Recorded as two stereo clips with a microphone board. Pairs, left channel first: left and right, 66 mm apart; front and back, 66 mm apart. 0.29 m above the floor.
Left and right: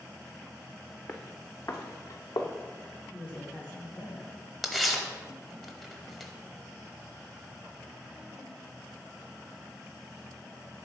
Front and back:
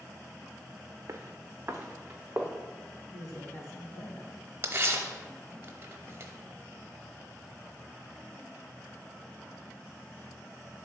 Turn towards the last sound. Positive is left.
turn(degrees=175)